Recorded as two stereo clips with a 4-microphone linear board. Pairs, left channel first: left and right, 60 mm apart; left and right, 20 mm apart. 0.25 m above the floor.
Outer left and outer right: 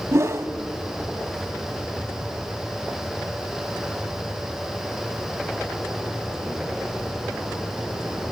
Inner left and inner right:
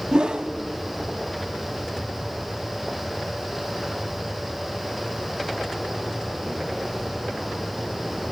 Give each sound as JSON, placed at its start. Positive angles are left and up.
{"t": 0.1, "sound": "a whoosh", "side_deg": -50, "distance_m": 0.6}